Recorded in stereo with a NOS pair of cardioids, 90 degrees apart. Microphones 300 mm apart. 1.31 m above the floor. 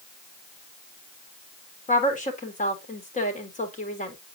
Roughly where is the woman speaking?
Ahead left.